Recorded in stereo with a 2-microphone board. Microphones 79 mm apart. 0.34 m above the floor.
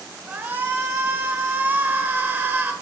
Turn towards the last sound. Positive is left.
turn(degrees=-25)  # may be behind; listen again after turning